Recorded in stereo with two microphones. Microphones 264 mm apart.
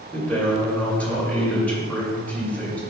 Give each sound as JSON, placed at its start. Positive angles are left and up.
{"t": 0.1, "sound": "a man speaking", "side_deg": 5, "distance_m": 2.5}